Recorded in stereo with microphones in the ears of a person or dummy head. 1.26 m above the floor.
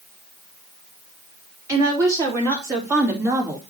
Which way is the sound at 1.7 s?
15° right (ahead or behind).